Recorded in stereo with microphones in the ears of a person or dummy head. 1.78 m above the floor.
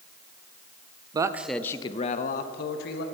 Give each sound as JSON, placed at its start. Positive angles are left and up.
{"t": 1.1, "sound": "a man speaking", "side_deg": -25, "distance_m": 0.5}